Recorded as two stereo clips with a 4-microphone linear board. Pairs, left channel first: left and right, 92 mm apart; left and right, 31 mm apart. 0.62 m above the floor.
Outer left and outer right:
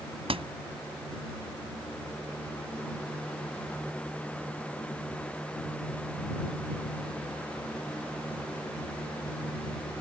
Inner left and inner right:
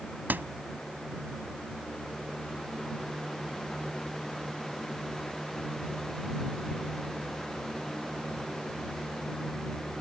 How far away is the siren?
I don't hear a siren.